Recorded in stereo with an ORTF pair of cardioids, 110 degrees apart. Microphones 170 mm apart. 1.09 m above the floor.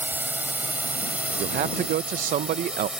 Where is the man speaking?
55° right.